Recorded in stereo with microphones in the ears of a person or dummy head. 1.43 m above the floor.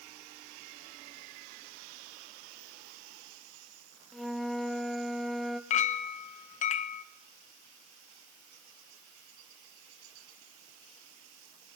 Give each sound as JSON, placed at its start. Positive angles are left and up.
{"t": 4.1, "sound": "a flute", "side_deg": 0, "distance_m": 1.1}
{"t": 5.7, "sound": "a clink", "side_deg": 40, "distance_m": 0.8}